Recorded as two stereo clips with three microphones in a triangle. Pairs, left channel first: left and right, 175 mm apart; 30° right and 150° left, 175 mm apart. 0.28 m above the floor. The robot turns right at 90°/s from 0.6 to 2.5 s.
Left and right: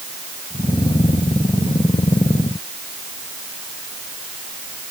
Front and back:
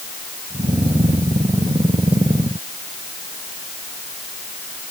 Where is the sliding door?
No sliding door in this recording.